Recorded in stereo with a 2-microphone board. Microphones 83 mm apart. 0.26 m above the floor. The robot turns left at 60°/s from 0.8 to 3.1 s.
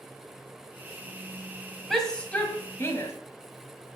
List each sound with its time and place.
1.9 s a shout: 175° left, 1.6 m; by 3.1 s 105° left, 1.6 m